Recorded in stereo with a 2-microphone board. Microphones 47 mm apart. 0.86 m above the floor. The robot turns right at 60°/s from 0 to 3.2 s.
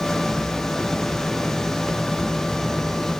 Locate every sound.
Only background noise.